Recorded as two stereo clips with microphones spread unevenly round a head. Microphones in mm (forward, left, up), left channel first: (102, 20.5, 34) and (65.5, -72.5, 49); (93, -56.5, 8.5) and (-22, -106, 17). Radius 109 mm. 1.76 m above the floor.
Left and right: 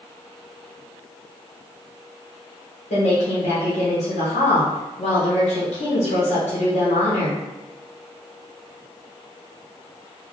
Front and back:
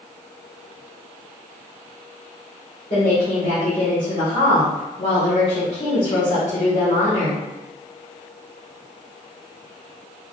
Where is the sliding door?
I don't hear a sliding door.